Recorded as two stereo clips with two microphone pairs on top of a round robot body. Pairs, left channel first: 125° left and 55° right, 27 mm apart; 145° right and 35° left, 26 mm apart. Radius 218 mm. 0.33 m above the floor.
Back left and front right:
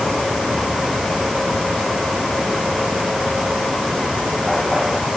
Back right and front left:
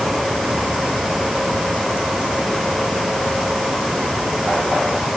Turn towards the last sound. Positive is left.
No sound to turn to.